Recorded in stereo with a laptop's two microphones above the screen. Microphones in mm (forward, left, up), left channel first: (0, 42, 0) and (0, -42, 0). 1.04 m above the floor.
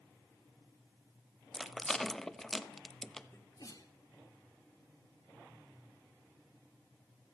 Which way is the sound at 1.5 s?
5° left (ahead or behind).